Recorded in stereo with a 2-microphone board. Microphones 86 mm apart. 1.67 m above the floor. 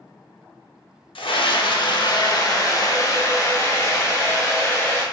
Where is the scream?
90° left, 0.6 m; by 5.0 s 30° left (ahead or behind), 2 m.